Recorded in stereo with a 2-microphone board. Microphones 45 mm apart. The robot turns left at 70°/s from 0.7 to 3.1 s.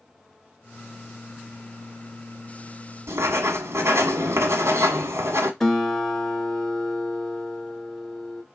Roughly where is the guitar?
Centre.